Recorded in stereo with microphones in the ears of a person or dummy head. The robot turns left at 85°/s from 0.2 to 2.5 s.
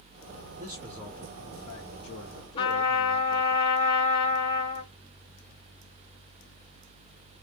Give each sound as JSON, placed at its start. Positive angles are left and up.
{"t": 0.6, "sound": "a man speaking", "azimuth_deg": -140, "distance_m": 1.1}
{"t": 2.6, "sound": "a trumpet", "side_deg": 35, "distance_m": 1.1}